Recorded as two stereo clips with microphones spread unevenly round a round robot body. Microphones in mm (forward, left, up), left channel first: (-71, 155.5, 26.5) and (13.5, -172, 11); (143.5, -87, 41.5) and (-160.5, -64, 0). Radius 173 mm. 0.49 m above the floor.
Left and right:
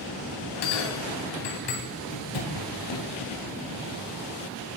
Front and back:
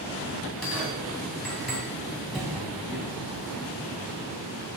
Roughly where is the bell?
Left.